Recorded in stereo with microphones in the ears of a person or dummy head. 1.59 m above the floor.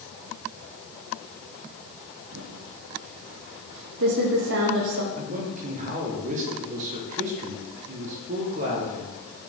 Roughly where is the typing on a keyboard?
Right.